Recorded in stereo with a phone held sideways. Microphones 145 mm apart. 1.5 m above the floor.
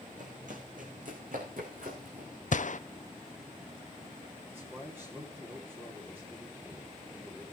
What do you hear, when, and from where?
0.2 s running footsteps: 60° right (ahead or behind), 3.5 m; by 2.3 s 70° right (ahead or behind), 5 m
2.5 s a gunshot: 60° left (ahead or behind), 0.5 m
4.5 s a man speaking: 15° right (ahead or behind), 4 m